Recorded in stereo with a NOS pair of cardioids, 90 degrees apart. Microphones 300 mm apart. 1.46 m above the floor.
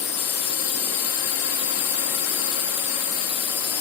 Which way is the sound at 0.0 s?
55° left.